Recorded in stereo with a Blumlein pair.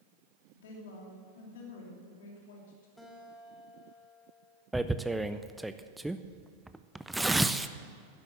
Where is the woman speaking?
55° left, 3 m.